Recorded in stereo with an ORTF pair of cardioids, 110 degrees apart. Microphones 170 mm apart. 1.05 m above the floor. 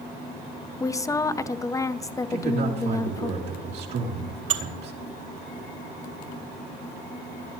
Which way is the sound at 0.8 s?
20° left.